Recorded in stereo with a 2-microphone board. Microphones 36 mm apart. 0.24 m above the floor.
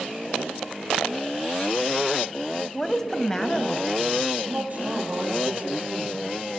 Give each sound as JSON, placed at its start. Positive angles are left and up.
{"t": 2.7, "sound": "a woman speaking", "side_deg": 10, "distance_m": 1.0}
{"t": 4.4, "sound": "a man speaking", "side_deg": -50, "distance_m": 6.0}